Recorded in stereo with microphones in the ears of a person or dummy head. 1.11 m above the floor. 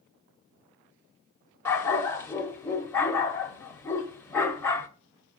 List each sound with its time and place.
1.6 s a dog barking: 15° left (ahead or behind), 1.4 m